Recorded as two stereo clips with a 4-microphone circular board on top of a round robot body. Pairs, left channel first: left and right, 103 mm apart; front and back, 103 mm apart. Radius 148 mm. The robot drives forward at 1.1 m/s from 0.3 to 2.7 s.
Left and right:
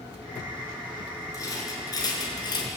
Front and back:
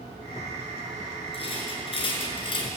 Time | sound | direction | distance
1.3 | a rattle | 30° left | 6 m